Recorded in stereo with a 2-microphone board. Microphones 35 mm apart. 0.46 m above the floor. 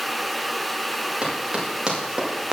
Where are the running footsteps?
30° right (ahead or behind), 8.5 m; by 2.5 s 25° right (ahead or behind), 7 m.